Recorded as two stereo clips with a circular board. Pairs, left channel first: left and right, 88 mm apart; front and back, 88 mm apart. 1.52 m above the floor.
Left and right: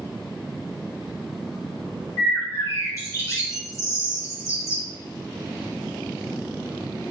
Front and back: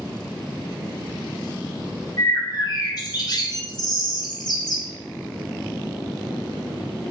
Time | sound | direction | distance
2.2 | a bird | 35° left | 3.5 m